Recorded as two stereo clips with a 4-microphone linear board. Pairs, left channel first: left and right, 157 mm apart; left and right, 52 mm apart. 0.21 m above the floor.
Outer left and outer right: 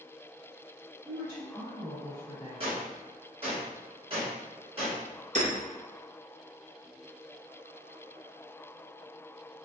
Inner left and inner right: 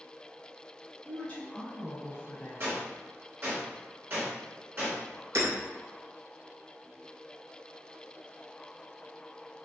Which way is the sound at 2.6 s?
40° right (ahead or behind).